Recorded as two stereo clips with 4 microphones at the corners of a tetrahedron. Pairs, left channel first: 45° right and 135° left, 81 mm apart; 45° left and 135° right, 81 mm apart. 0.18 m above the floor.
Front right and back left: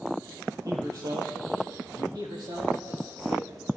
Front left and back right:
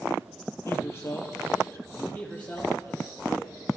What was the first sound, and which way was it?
A man speaking, 100° left.